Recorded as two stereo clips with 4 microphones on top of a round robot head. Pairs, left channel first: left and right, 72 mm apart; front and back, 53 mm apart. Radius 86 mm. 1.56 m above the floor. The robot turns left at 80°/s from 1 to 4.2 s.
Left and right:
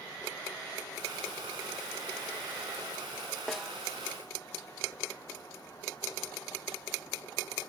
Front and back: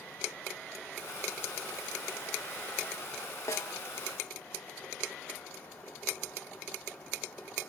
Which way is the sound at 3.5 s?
5° left.